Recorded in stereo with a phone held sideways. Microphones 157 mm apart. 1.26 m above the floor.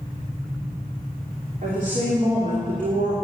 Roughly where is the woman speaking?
Right.